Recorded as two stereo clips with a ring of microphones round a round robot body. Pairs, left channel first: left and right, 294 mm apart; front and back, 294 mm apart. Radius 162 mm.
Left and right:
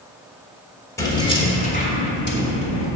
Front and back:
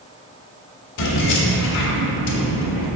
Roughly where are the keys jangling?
Ahead.